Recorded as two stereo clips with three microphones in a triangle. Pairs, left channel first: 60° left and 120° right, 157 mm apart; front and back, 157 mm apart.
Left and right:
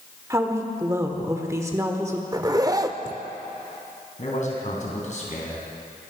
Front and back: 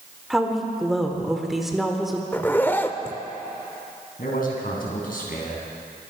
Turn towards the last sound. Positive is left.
turn(degrees=20)